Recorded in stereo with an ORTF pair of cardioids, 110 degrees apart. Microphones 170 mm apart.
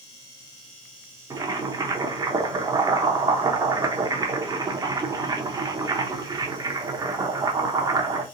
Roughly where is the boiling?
Ahead.